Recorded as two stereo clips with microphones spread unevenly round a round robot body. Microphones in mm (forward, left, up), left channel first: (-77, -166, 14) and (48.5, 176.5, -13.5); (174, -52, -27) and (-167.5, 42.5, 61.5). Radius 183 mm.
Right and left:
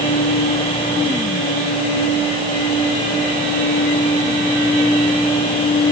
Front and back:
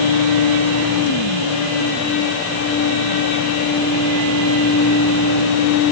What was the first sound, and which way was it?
Only background noise.